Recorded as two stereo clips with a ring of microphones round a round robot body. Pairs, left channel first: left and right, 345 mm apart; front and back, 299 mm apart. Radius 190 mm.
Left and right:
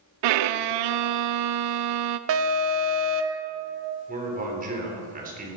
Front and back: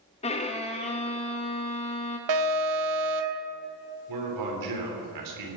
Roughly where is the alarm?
Behind right.